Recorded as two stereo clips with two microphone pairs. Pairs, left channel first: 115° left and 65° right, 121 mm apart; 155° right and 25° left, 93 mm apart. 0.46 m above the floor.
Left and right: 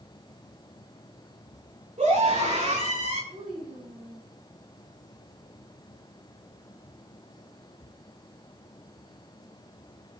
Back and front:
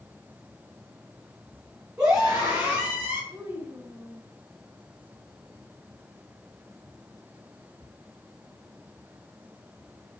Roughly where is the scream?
Ahead right.